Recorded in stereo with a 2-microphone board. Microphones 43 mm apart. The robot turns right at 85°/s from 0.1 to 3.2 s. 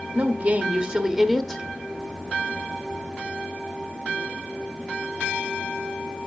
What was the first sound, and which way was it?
A woman speaking, 110° right.